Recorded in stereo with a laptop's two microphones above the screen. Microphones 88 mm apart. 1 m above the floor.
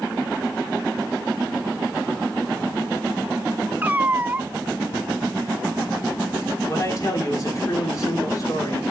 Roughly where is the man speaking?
Left.